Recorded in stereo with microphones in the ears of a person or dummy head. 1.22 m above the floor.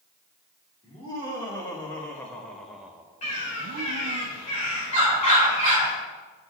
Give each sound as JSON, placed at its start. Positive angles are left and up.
{"t": 0.8, "sound": "laughter", "side_deg": 25, "distance_m": 2.5}
{"t": 3.2, "sound": "a bird", "side_deg": 40, "distance_m": 2.5}